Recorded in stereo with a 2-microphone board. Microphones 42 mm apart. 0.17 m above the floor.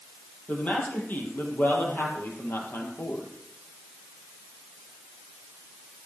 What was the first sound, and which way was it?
A man speaking, 40° left (ahead or behind).